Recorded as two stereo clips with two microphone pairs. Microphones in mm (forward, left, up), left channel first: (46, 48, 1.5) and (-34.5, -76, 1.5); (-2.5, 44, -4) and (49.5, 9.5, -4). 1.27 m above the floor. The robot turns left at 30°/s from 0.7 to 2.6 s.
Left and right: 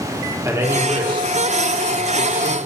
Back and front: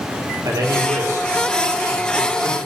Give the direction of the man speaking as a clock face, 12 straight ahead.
2 o'clock.